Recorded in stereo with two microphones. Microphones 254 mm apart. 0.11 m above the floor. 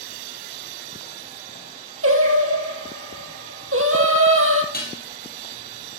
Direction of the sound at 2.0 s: 60° right (ahead or behind).